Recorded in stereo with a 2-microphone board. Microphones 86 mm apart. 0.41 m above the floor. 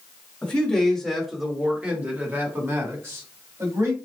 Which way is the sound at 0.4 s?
20° left (ahead or behind).